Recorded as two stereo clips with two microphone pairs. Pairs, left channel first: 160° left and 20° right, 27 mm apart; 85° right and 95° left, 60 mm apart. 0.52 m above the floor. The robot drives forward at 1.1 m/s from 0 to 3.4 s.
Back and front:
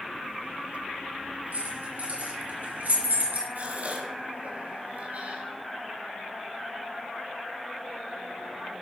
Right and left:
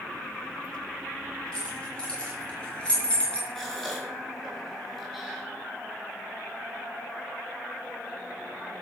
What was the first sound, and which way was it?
Keys jangling, 10° right.